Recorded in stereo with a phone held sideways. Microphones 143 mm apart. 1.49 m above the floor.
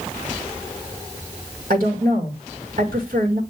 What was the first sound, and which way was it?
A woman speaking, 85° right.